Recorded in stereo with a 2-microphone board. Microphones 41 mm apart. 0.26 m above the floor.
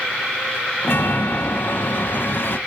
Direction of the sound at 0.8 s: 55° left (ahead or behind).